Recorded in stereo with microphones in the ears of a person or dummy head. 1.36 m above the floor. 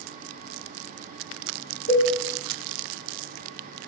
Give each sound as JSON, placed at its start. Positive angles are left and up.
{"t": 1.9, "sound": "a cowbell", "side_deg": 75, "distance_m": 1.8}